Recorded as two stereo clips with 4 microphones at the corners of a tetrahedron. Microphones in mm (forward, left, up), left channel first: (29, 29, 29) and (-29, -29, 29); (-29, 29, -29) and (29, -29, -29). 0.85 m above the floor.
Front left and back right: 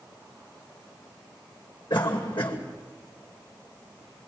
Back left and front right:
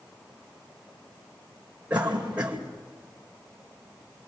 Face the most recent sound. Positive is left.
turn(degrees=30)